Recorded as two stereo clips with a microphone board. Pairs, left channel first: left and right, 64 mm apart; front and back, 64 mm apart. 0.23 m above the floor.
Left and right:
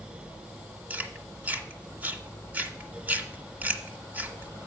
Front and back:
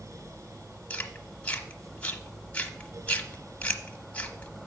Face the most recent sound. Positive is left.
turn(degrees=-50)